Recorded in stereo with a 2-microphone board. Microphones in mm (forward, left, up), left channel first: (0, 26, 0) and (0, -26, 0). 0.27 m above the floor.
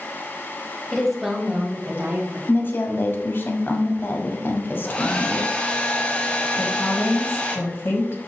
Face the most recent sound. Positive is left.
turn(degrees=50)  # may be behind; listen again after turning